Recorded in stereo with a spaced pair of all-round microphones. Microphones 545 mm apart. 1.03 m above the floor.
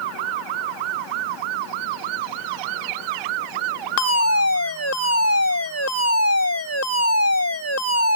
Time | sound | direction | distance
4.0 | a fire alarm | 30° left (ahead or behind) | ?